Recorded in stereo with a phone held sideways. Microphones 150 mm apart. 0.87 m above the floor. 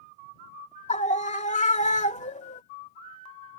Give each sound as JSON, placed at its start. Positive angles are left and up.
{"t": 0.9, "sound": "a scream", "side_deg": 50}